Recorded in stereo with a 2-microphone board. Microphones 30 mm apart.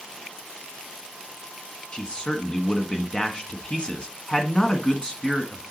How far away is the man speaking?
About 1.4 m.